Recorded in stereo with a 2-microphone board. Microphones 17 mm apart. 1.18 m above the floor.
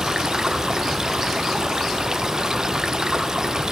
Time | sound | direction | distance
0.0 | running water | 35° right (ahead or behind) | 0.7 m